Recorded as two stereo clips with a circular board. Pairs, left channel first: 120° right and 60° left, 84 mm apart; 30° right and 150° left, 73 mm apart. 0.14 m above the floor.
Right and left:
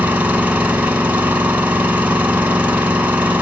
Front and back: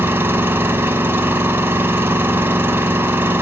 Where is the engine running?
120° left, 0.9 m.